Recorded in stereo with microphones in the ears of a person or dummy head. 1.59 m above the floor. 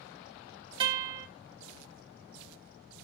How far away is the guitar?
About 1.1 m.